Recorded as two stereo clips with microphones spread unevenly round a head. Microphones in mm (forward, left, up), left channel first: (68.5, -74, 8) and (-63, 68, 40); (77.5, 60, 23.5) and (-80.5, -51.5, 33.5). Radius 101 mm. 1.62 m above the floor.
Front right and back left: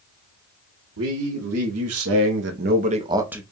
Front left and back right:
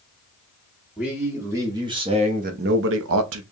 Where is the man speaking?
130° left, 1.5 m; by 3.4 s 140° right, 0.7 m.